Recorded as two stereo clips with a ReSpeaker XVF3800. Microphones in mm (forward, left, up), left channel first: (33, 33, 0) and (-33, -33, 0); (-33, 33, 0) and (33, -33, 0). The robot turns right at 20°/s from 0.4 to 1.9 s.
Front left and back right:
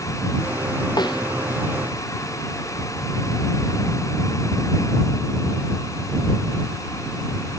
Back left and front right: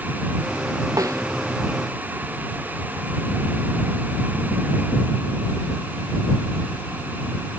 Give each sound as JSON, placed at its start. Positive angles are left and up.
{"t": 1.0, "sound": "a snare drum", "azimuth_deg": 5}